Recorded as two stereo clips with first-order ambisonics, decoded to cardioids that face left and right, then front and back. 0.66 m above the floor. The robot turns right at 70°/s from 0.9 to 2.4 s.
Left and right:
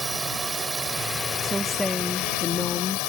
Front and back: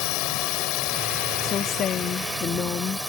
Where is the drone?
15° right; by 3.1 s 90° left.